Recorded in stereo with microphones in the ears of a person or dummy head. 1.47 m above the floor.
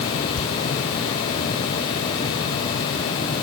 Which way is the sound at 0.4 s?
75° left (ahead or behind).